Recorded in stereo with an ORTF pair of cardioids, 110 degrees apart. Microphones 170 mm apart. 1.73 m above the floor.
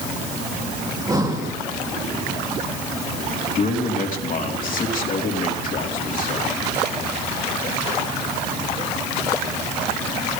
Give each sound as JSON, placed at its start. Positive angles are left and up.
{"t": 0.9, "sound": "breathing", "azimuth_deg": -20, "distance_m": 3.0}
{"t": 3.5, "sound": "a man speaking", "azimuth_deg": 50, "distance_m": 3.5}